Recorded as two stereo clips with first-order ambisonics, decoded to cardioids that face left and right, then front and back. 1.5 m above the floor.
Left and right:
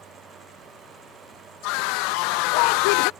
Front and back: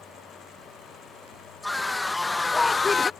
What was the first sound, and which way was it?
A scream, 85° left.